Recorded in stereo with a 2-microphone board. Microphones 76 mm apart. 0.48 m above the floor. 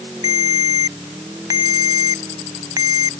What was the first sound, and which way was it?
A ringtone, 55° right (ahead or behind).